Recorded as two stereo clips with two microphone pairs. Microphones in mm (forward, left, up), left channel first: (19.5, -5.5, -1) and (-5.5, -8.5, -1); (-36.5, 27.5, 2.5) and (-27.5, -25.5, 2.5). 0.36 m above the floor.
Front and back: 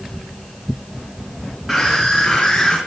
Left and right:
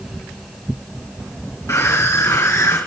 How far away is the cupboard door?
I don't hear a cupboard door.